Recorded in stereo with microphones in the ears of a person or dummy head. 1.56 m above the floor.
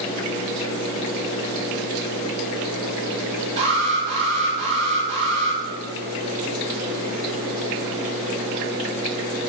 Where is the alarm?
40° right (ahead or behind), 6 m.